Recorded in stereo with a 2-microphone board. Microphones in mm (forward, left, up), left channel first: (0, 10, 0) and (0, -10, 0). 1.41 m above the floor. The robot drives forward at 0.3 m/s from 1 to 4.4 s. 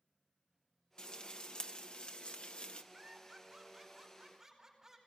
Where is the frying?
50° left (ahead or behind), 1.5 m; by 2.8 s 70° left (ahead or behind), 1.2 m.